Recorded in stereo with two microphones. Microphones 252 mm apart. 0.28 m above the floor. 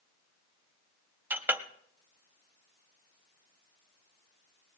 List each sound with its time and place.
1.3 s a clink: 10° right (ahead or behind), 0.7 m